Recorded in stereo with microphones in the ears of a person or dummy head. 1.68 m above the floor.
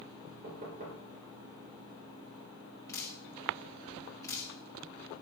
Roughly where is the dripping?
Centre.